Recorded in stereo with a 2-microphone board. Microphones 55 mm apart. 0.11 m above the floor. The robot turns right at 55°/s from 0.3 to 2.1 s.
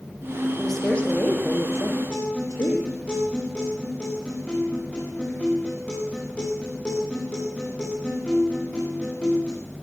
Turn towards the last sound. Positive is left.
turn(degrees=25)  # may be behind; listen again after turning